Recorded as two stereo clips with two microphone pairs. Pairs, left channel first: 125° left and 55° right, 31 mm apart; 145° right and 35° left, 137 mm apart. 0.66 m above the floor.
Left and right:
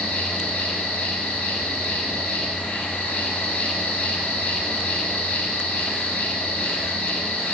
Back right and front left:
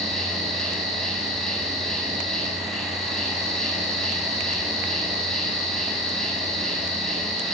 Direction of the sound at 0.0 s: 125° left.